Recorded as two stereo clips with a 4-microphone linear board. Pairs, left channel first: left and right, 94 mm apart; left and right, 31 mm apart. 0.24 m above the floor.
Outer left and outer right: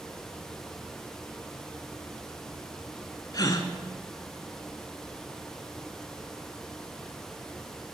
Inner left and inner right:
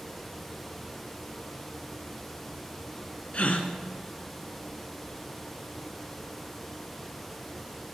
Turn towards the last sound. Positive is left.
turn(degrees=45)  # may be behind; listen again after turning